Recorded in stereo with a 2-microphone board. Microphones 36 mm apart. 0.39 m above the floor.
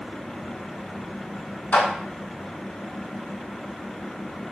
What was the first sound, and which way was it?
A clap, 65° left (ahead or behind).